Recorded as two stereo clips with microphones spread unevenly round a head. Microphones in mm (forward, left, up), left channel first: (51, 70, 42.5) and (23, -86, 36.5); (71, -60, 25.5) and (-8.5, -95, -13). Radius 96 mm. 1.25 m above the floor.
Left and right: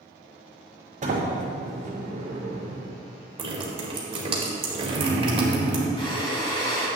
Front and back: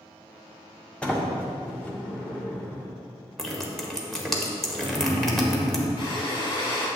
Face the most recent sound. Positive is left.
turn(degrees=20)